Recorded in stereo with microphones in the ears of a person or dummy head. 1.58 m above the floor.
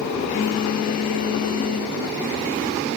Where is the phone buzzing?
40° left (ahead or behind), 1.6 m.